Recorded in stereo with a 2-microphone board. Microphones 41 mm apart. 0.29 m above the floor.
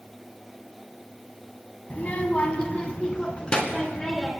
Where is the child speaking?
40° left (ahead or behind), 1.4 m; by 4.3 s 20° left (ahead or behind), 2.5 m.